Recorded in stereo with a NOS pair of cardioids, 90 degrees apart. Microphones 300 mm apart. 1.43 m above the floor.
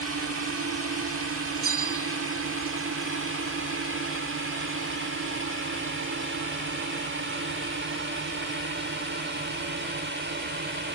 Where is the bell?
50° right.